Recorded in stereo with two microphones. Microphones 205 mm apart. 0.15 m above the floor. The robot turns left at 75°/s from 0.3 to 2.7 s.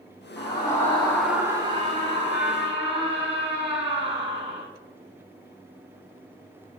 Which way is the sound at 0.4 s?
25° left (ahead or behind).